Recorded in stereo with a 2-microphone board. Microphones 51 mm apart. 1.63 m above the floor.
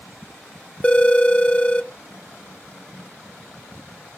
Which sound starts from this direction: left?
A phone ringing, at 0.8 s.